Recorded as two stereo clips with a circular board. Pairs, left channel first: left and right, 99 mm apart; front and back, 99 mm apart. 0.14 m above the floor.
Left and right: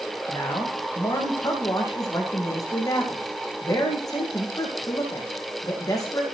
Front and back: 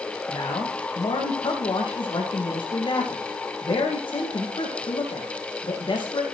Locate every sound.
0.3 s a man speaking: 35° left, 10 m